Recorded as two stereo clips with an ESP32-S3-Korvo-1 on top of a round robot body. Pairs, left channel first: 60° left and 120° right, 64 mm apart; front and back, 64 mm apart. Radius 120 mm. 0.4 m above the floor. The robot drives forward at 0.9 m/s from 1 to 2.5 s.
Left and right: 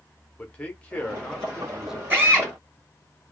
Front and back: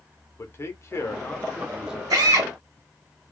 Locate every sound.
0.4 s a man speaking: 5° right, 1.0 m; by 2.0 s 175° right, 0.8 m
2.1 s a drill: straight behind, 2.0 m